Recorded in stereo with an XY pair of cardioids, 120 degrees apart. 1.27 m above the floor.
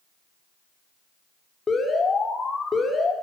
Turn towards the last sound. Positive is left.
turn(degrees=30)